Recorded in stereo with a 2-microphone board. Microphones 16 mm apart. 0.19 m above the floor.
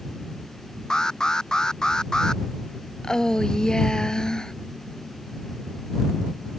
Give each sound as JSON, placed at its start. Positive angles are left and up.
{"t": 0.9, "sound": "an alarm", "side_deg": 40}
{"t": 3.0, "sound": "a woman speaking", "side_deg": 45}